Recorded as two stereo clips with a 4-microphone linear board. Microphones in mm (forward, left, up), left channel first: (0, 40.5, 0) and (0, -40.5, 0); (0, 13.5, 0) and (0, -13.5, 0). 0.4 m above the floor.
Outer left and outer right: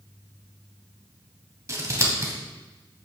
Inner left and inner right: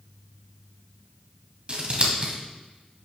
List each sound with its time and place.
1.7 s scissors: 40° right (ahead or behind), 2.5 m